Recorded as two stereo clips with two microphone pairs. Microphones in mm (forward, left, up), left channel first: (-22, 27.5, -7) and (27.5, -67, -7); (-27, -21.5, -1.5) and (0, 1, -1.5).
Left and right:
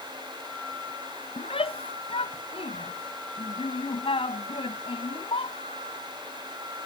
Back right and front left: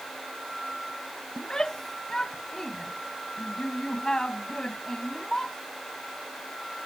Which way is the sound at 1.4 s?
145° left.